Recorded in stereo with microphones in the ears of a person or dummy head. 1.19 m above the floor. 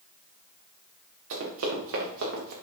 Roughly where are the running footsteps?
Right.